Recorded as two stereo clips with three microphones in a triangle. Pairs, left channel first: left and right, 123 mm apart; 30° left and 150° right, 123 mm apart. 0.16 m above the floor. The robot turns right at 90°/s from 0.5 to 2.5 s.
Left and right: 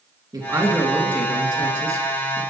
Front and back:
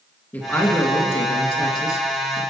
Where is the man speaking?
45° right, 2.5 m; by 2.4 s 130° left, 2.5 m.